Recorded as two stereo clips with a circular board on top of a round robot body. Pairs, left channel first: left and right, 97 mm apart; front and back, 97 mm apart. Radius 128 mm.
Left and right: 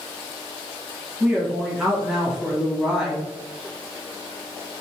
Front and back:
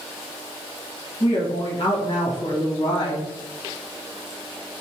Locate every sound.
1.2 s a woman speaking: 5° right, 1.3 m